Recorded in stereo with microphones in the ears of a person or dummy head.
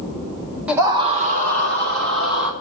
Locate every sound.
0.7 s a scream: 5° right (ahead or behind), 0.7 m; by 2.5 s 70° right (ahead or behind), 1.7 m